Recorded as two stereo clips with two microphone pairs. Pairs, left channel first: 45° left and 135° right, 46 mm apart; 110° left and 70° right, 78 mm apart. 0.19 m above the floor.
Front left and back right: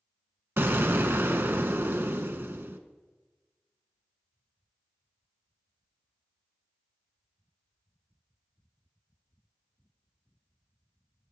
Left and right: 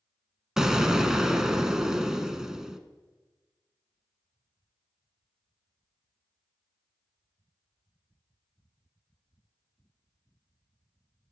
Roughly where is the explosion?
Behind right.